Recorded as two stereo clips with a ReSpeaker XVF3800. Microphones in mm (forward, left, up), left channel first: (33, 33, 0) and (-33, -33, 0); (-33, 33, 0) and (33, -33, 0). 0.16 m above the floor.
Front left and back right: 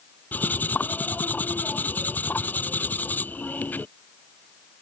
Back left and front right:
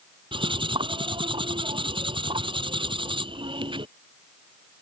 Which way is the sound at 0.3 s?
25° right.